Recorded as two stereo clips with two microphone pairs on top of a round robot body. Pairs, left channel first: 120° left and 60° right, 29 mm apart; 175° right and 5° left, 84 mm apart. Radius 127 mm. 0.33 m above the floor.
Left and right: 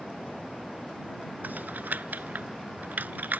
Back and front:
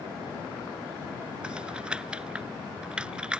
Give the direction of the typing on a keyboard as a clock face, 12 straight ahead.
3 o'clock.